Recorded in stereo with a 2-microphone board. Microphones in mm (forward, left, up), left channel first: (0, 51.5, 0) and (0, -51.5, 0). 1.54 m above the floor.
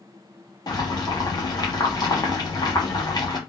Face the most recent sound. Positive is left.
turn(degrees=40)  # may be behind; listen again after turning